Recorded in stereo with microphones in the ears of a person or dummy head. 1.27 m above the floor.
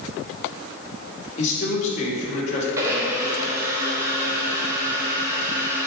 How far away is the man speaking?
About 1.9 m.